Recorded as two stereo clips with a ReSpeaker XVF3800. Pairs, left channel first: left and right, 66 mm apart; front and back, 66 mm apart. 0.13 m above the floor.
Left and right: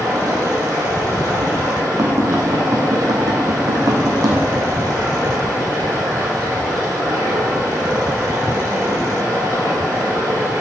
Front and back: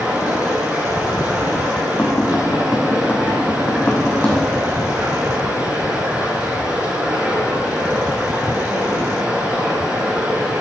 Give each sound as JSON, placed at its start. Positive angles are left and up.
{"t": 0.0, "sound": "running water", "azimuth_deg": -115, "distance_m": 3.5}
{"t": 2.0, "sound": "tapping", "azimuth_deg": -65, "distance_m": 1.8}